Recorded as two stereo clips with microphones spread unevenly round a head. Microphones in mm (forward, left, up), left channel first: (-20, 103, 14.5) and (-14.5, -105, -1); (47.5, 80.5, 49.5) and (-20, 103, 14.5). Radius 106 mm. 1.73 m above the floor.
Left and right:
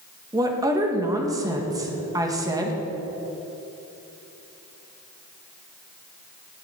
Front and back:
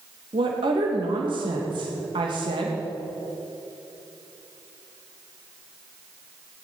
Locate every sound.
0.3 s a woman speaking: 165° right, 2 m